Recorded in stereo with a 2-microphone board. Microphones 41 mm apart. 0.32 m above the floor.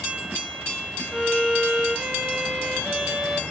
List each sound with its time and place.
1.1 s a violin: 10° right (ahead or behind), 1.0 m